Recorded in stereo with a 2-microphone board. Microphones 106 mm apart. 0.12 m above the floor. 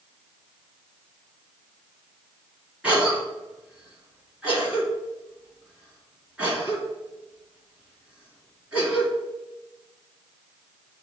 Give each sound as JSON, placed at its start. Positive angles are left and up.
{"t": 2.8, "sound": "a cough", "side_deg": -10, "distance_m": 1.8}